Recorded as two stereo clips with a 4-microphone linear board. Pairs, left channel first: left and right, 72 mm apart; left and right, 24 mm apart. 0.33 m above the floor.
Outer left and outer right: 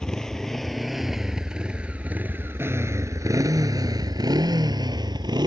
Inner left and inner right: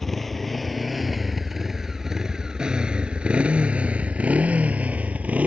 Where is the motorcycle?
10° left (ahead or behind); by 5.5 s 85° right.